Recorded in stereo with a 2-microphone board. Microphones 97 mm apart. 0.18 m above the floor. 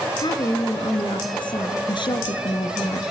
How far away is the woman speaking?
About 2.5 m.